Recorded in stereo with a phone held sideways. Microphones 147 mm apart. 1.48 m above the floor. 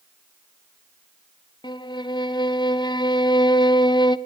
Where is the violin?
30° left (ahead or behind), 0.9 m.